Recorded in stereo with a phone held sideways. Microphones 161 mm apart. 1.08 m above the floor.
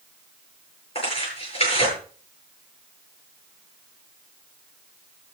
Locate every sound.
0.9 s tearing paper: 35° left (ahead or behind), 9 m